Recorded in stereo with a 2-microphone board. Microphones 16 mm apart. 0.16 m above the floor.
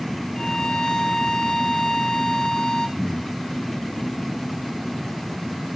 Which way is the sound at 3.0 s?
5° left (ahead or behind).